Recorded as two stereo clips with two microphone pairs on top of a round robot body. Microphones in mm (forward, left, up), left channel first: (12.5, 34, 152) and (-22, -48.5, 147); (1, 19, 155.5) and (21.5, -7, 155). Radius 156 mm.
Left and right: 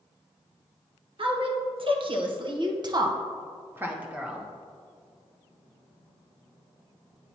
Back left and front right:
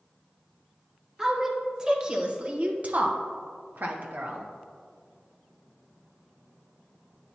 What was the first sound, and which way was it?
A woman speaking, 125° right.